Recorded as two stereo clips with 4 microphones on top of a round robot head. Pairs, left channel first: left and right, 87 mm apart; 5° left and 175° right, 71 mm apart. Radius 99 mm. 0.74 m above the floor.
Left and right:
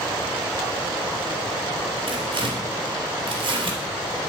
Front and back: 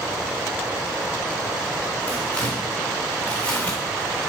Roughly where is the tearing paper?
Right.